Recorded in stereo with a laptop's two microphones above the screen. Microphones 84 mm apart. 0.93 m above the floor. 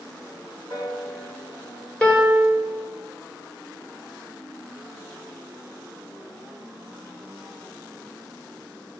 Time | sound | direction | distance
0.7 | a piano | 85° left | 2.5 m
2.0 | a piano | 15° left (ahead or behind) | 1.3 m